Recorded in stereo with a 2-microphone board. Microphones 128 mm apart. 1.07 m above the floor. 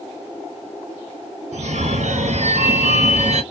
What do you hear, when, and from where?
1.5 s a phone ringing: 65° right (ahead or behind), 0.8 m